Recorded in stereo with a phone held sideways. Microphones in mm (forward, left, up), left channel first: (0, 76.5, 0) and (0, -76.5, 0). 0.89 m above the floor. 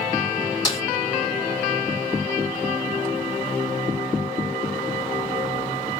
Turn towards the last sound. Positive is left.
turn(degrees=25)  # may be behind; listen again after turning